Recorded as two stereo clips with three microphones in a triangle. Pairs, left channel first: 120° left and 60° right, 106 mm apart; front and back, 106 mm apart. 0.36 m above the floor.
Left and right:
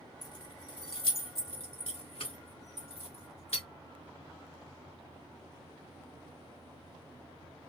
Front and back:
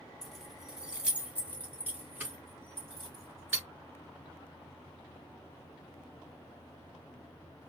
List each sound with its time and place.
0.2 s keys jangling: 85° left, 1.1 m; by 3.6 s 115° left, 3.5 m